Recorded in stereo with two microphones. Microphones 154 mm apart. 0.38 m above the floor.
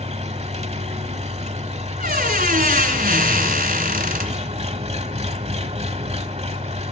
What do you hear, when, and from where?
0.0 s an engine running: 45° right (ahead or behind), 1.0 m
2.0 s a squeak: 70° right (ahead or behind), 1.7 m